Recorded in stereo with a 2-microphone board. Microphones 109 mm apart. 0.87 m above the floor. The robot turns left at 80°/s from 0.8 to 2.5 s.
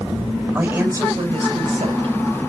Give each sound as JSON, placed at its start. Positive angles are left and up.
{"t": 0.6, "sound": "a woman speaking", "azimuth_deg": -20, "distance_m": 4.5}